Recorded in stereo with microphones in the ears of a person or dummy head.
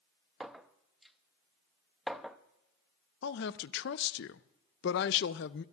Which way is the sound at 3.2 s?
60° left (ahead or behind).